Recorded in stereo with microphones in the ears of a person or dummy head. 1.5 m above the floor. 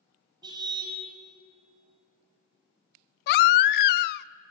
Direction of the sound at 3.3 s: 55° left (ahead or behind).